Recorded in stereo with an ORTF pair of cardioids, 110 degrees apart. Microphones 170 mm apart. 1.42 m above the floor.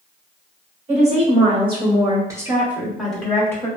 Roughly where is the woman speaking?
Ahead right.